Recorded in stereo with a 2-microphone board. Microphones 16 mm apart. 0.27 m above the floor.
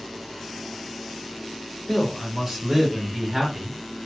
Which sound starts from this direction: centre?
A man speaking, at 1.9 s.